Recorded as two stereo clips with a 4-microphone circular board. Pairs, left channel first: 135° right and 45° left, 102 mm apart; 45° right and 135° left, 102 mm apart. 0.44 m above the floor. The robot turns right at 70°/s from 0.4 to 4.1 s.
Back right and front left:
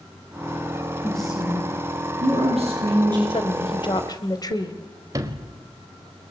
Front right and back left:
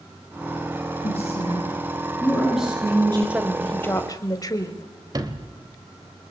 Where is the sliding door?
90° left, 2.5 m.